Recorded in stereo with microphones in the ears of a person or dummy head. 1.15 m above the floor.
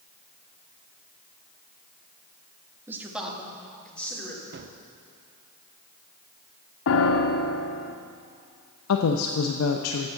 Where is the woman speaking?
85° left, 0.7 m.